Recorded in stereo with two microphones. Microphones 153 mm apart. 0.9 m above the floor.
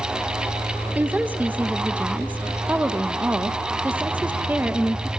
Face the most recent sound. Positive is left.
turn(degrees=-10)  # may be behind; listen again after turning